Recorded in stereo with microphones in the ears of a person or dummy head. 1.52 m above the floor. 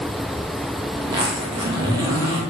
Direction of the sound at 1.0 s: 25° right (ahead or behind).